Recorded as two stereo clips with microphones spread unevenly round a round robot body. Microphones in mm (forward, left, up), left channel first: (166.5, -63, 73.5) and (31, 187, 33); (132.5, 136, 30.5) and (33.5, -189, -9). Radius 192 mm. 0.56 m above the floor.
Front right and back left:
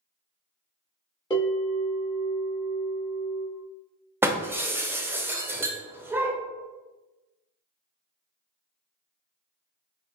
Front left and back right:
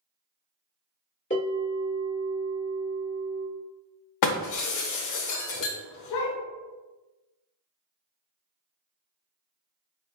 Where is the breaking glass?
35° left, 0.6 m.